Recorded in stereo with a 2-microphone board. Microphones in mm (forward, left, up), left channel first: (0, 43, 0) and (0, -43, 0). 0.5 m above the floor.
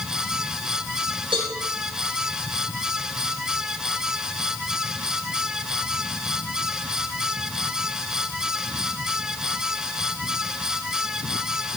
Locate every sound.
1.3 s a cowbell: 85° right, 5 m